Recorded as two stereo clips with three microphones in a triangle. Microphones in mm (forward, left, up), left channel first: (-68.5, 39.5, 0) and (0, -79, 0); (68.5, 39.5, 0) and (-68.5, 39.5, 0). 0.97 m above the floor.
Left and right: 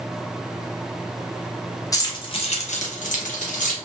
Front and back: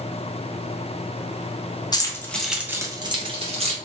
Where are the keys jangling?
60° left, 0.6 m; by 3.8 s 140° left, 0.9 m.